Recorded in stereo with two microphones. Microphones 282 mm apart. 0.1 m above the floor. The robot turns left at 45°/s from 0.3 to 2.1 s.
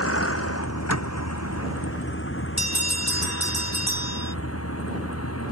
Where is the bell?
75° left (ahead or behind).